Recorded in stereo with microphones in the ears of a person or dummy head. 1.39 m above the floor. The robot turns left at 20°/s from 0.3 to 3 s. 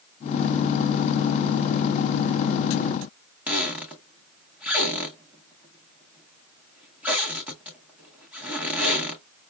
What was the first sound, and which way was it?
A squeak, 15° right (ahead or behind).